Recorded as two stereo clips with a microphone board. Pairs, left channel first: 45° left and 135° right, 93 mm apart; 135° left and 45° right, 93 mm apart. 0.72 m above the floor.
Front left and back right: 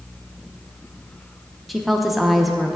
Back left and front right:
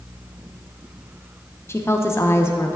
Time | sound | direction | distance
1.7 | a woman speaking | 135° left | 0.6 m